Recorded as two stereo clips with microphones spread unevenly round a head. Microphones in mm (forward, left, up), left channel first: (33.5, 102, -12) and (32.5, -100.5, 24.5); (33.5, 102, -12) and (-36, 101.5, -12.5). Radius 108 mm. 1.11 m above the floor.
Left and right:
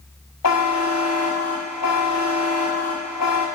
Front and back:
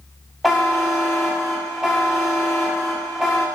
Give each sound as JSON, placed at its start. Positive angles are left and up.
{"t": 0.4, "sound": "a buzzer", "azimuth_deg": 90, "distance_m": 1.9}